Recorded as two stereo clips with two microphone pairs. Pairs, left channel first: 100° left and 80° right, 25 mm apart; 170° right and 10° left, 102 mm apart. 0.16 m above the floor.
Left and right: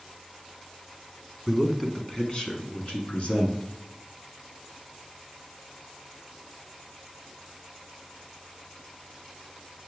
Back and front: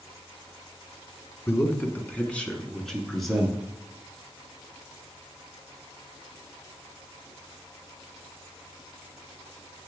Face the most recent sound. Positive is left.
turn(degrees=100)